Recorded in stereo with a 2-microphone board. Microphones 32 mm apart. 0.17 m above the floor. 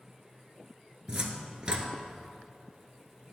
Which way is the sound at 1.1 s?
30° right (ahead or behind).